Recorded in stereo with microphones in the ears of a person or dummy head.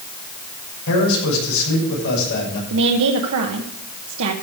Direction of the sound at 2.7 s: 80° right.